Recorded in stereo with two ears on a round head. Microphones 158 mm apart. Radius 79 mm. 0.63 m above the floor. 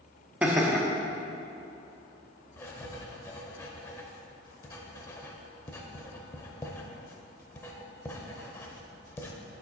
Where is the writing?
15° left (ahead or behind), 0.7 m.